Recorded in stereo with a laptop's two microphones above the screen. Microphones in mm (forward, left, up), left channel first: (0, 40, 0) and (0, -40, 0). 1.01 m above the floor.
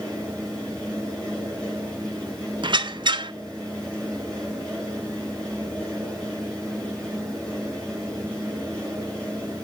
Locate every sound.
0.0 s a fan: 10° left (ahead or behind), 5.5 m
2.6 s a squeak: 75° right (ahead or behind), 0.6 m